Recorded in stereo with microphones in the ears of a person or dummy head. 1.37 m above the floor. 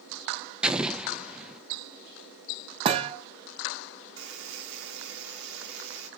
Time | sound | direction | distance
0.6 | an explosion | 5° right (ahead or behind) | 0.7 m
2.9 | a thud | 30° right (ahead or behind) | 1.2 m
4.2 | a buzzer | 80° right | 3.5 m